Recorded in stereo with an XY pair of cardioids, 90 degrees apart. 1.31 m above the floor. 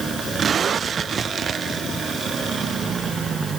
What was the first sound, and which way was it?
Only background noise.